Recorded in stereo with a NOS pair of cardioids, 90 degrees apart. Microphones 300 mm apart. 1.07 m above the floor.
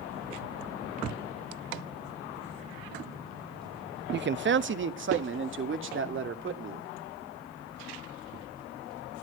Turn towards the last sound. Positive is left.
turn(degrees=-40)